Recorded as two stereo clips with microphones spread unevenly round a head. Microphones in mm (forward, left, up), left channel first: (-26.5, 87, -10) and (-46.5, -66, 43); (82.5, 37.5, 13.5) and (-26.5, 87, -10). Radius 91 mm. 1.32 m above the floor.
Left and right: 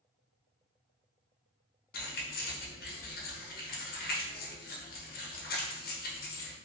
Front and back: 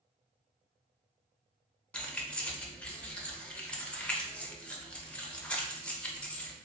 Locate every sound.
1.9 s keys jangling: 40° left, 0.6 m